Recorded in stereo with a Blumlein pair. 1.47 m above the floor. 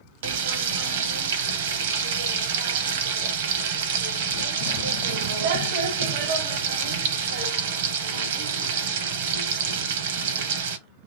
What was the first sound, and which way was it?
Frying, 55° right.